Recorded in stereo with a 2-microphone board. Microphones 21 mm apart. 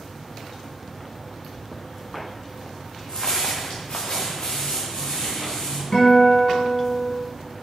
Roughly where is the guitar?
Left.